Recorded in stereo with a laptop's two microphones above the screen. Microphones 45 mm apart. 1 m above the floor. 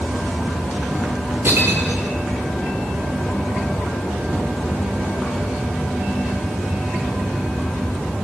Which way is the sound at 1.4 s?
55° right (ahead or behind).